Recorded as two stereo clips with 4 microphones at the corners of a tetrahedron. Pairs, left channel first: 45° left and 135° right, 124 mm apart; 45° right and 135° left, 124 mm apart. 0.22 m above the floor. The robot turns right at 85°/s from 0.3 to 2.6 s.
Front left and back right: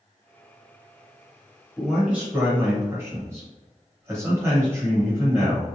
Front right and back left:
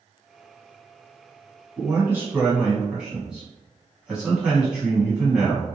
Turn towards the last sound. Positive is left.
turn(degrees=-155)